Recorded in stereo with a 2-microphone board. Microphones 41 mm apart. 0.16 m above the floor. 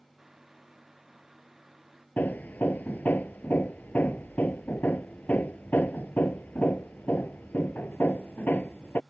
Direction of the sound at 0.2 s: 10° right (ahead or behind).